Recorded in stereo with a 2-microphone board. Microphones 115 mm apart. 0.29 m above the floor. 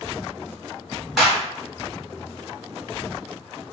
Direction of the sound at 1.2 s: Centre (ahead or behind).